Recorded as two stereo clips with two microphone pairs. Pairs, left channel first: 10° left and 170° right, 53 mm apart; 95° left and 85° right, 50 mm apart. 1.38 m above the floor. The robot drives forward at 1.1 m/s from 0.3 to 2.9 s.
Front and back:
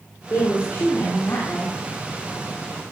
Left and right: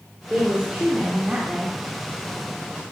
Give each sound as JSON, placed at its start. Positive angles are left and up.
{"t": 0.3, "sound": "a woman speaking", "azimuth_deg": -20, "distance_m": 3.0}